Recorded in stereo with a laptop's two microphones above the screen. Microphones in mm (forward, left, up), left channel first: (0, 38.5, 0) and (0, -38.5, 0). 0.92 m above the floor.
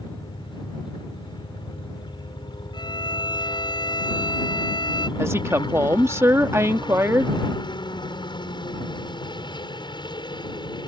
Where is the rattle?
No rattle in this recording.